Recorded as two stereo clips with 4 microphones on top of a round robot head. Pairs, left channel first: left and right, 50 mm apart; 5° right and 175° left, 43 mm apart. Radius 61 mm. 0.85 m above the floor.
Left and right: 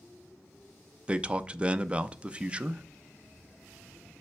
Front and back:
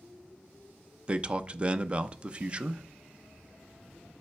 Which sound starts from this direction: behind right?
A man speaking, at 1.1 s.